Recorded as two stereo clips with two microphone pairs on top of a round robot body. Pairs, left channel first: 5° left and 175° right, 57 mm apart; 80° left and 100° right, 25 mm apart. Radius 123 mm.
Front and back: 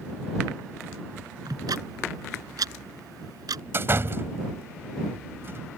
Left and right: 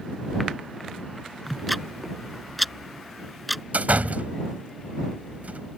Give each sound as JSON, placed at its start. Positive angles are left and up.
{"t": 1.5, "sound": "ticking", "azimuth_deg": 170}
{"t": 3.7, "sound": "a door slam", "azimuth_deg": -125}